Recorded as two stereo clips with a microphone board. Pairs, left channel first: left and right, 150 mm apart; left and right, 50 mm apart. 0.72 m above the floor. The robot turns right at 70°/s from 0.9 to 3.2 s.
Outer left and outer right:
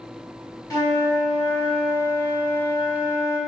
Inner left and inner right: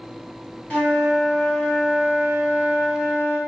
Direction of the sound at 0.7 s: 155° left.